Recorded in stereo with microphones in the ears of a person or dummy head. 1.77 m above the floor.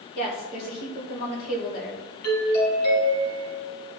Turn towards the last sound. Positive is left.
turn(degrees=60)  # may be behind; listen again after turning